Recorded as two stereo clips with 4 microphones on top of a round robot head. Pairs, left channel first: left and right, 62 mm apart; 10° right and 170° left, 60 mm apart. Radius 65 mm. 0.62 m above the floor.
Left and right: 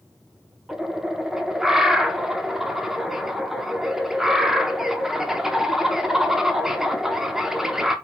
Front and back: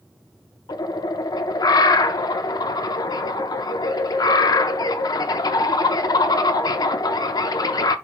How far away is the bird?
About 0.5 m.